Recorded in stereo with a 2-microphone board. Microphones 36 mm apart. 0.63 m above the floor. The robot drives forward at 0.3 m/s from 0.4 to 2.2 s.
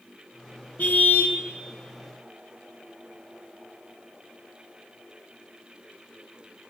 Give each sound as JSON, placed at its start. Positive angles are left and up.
{"t": 0.8, "sound": "a car horn", "side_deg": 55, "distance_m": 2.5}